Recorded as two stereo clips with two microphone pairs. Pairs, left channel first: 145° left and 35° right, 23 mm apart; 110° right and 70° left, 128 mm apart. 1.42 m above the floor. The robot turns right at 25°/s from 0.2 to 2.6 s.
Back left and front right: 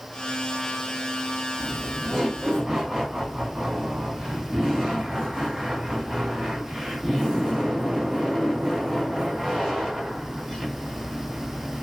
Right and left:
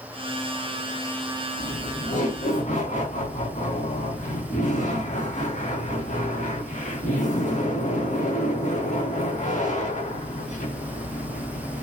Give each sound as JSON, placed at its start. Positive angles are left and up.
{"t": 1.6, "sound": "laughter", "azimuth_deg": -125, "distance_m": 4.0}